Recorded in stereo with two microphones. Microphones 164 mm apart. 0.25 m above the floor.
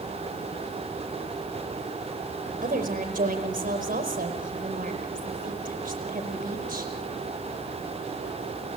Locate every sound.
2.6 s a woman speaking: 55° right (ahead or behind), 5 m